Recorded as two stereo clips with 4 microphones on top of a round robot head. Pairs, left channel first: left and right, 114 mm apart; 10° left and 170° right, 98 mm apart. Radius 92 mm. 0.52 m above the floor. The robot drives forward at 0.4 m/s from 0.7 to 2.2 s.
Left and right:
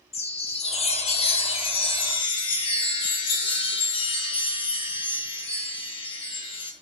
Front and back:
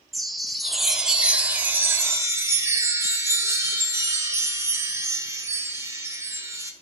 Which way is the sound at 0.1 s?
100° left.